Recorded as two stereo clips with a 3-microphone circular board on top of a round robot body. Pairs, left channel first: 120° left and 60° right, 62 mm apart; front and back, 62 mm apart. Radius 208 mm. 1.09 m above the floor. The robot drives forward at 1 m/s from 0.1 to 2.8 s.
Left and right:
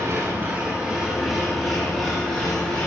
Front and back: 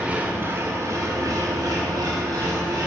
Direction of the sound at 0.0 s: 105° right.